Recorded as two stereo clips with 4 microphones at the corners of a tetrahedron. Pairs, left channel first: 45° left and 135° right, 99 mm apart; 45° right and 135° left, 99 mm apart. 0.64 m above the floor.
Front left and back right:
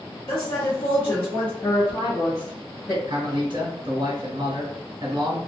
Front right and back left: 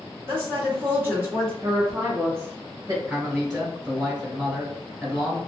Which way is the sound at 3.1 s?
145° right.